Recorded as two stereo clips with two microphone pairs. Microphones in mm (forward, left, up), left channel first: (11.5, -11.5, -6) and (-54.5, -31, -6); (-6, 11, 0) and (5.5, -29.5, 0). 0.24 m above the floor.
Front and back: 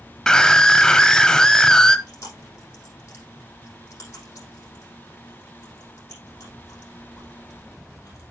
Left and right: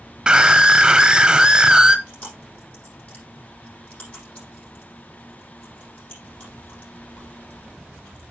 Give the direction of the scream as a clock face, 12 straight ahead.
2 o'clock.